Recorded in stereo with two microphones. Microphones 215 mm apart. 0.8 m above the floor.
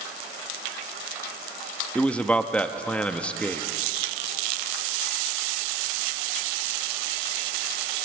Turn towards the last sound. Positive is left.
turn(degrees=5)  # may be behind; listen again after turning